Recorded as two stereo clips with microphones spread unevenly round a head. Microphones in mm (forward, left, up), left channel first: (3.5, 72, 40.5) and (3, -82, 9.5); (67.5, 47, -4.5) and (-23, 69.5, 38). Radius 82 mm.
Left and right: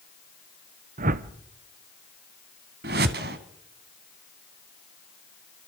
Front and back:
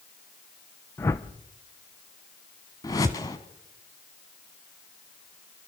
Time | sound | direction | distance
1.0 | a whoosh | 70° right | 0.9 m
2.8 | a whoosh | 100° right | 1.4 m